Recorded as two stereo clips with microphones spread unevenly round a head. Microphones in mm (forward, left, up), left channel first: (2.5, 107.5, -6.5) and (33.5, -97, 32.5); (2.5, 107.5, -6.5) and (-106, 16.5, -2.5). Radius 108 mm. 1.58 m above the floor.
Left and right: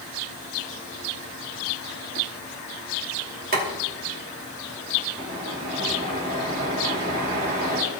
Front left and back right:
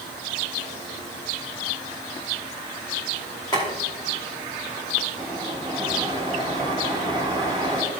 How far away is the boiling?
About 2.5 m.